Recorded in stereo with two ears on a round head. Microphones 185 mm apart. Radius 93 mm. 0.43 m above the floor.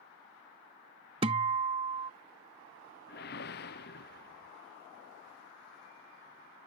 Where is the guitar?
30° right (ahead or behind).